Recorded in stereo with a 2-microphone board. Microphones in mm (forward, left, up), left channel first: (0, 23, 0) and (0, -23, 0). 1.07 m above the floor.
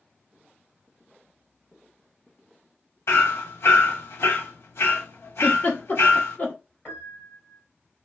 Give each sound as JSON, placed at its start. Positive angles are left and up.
{"t": 3.1, "sound": "hammering", "side_deg": 70, "distance_m": 1.2}
{"t": 5.4, "sound": "a giggle", "side_deg": 40, "distance_m": 1.0}
{"t": 6.8, "sound": "a piano", "side_deg": 35, "distance_m": 2.0}